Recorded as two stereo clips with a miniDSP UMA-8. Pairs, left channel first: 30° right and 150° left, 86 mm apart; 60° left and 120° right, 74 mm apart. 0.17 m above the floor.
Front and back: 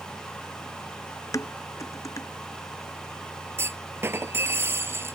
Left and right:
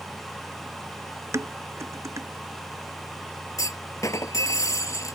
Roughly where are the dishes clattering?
Right.